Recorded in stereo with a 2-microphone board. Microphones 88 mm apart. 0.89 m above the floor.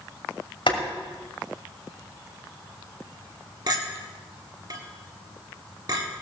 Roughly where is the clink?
Right.